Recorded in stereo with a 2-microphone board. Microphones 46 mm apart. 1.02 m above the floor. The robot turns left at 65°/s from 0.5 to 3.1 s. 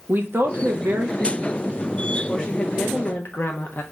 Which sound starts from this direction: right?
A woman speaking, at 0.1 s.